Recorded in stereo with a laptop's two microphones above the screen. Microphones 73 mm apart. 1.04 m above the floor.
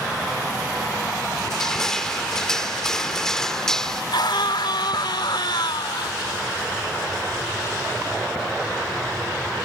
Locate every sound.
1.4 s crushing: 5° left (ahead or behind)
4.1 s a scream: 80° left